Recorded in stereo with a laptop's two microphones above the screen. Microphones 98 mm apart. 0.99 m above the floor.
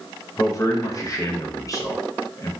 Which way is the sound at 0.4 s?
35° left (ahead or behind).